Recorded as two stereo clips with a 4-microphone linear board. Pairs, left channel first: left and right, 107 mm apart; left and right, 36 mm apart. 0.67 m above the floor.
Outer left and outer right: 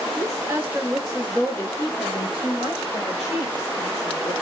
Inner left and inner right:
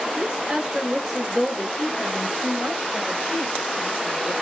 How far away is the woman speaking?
About 0.9 m.